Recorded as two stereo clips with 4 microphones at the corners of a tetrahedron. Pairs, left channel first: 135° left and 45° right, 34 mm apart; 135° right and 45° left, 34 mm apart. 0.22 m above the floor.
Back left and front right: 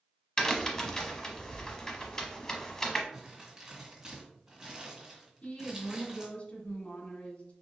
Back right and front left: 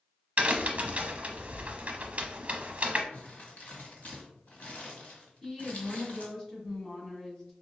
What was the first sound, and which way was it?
A crack, 70° left.